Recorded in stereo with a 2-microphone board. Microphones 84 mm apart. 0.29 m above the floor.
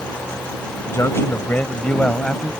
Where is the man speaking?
35° left (ahead or behind); by 2.5 s 5° left (ahead or behind).